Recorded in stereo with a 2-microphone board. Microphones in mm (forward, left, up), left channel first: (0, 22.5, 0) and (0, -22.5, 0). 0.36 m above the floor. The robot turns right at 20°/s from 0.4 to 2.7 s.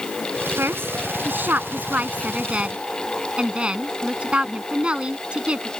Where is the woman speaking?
60° right (ahead or behind); by 5.7 s 25° right (ahead or behind).